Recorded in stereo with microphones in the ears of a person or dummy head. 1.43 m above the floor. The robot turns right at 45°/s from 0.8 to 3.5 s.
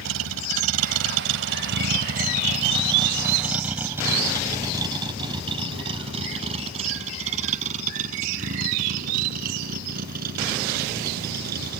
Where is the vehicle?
80° right; by 11.8 s 50° right (ahead or behind).